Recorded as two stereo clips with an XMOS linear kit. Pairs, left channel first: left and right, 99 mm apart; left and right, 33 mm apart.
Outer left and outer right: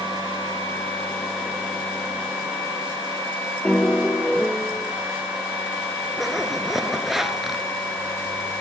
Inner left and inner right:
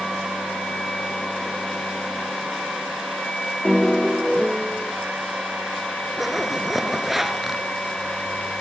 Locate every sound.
3.6 s a piano: 5° left (ahead or behind), 2.5 m
6.2 s a zipper: 5° right (ahead or behind), 2 m